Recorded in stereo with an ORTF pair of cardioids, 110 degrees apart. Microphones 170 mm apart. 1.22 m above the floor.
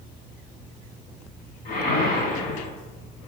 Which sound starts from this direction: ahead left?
A whoosh, at 1.6 s.